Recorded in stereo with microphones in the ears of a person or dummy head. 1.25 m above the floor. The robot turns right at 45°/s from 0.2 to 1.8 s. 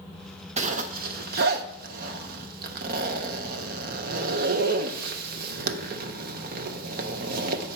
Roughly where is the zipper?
Right.